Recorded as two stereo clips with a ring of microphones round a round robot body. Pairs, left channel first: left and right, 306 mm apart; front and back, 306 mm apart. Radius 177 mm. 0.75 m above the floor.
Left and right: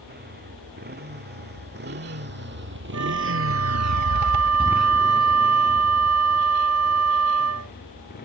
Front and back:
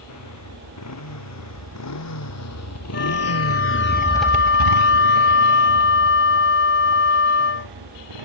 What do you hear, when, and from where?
0.0 s a motorcycle: 30° right; by 8.3 s 155° left
2.9 s a flute: 50° right